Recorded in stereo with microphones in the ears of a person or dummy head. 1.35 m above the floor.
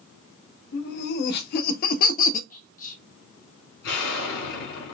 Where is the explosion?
65° left (ahead or behind), 3 m.